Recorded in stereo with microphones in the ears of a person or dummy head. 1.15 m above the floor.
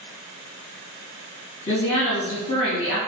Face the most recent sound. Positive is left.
turn(degrees=70)  # may be behind; listen again after turning